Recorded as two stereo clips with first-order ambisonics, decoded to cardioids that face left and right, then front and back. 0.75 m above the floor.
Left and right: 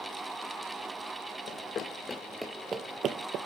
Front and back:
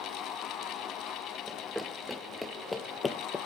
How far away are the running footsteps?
About 0.9 m.